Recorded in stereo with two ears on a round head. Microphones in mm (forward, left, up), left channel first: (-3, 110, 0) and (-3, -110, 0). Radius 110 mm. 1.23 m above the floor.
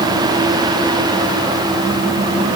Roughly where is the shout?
I don't hear a shout.